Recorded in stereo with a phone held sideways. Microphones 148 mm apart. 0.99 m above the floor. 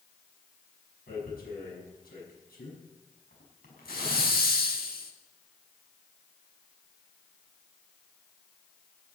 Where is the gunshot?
No gunshot in this recording.